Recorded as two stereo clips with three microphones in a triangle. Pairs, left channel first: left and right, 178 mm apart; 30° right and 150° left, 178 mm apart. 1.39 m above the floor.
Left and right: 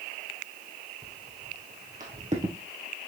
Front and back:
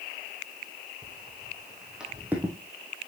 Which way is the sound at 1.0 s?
115° right.